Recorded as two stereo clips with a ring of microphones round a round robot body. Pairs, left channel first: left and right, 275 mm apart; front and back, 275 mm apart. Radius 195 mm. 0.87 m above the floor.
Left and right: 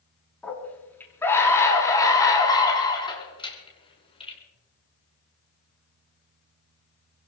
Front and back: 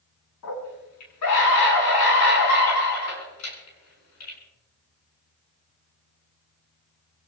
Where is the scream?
5° left, 8.5 m; by 4.4 s 20° left, 9.5 m.